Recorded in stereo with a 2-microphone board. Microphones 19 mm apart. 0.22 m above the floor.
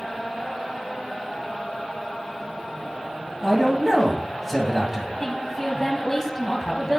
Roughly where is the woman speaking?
Centre.